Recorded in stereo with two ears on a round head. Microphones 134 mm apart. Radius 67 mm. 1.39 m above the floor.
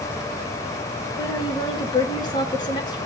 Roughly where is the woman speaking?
Left.